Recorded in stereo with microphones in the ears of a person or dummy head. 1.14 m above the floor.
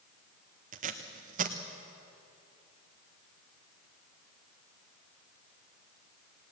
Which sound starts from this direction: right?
Tape being pulled, at 0.7 s.